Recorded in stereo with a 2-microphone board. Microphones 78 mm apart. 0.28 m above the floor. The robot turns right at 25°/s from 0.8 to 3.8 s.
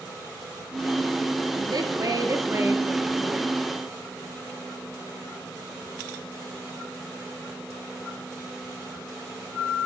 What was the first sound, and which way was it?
A woman speaking, 60° right.